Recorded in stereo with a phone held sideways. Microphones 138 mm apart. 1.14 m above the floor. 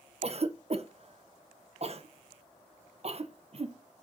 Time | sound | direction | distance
0.2 | a cough | 45° right (ahead or behind) | 0.9 m